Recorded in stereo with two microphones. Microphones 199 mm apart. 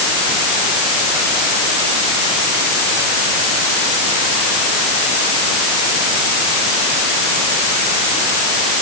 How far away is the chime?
No chime in this recording.